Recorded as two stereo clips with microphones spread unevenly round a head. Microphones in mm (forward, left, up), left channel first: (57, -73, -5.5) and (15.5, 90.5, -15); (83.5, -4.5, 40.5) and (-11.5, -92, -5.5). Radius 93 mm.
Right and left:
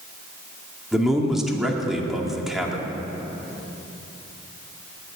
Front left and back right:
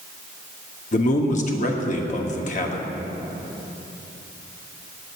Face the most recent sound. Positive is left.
turn(degrees=15)